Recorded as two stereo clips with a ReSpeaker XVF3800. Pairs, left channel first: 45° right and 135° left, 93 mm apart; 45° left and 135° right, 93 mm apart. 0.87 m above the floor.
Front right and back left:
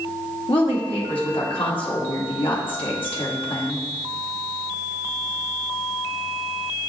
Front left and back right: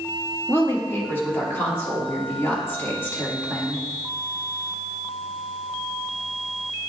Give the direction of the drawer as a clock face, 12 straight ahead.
No drawer in this recording.